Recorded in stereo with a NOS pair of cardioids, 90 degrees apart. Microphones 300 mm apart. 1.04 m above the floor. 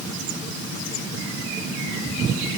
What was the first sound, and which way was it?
Only background noise.